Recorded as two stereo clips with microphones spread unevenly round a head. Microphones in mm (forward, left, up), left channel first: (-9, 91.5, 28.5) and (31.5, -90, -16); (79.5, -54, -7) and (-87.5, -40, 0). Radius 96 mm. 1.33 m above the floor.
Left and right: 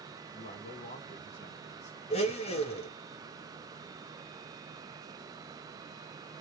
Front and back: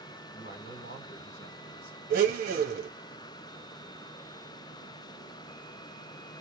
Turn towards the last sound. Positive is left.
turn(degrees=145)